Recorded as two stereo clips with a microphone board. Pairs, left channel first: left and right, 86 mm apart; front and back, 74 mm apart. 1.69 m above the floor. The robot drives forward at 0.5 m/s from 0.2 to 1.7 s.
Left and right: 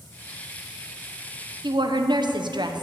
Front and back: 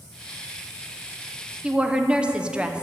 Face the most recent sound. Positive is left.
turn(degrees=-105)